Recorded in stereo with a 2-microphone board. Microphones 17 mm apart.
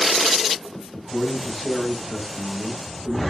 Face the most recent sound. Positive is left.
turn(degrees=50)  # may be behind; listen again after turning